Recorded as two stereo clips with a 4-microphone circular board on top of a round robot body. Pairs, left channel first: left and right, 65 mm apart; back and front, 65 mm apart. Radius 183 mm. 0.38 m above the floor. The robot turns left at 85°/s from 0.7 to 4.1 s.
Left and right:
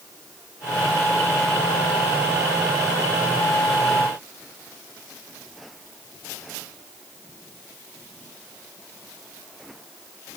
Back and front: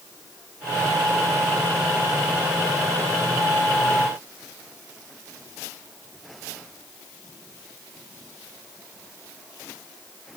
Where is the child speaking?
I don't hear a child speaking.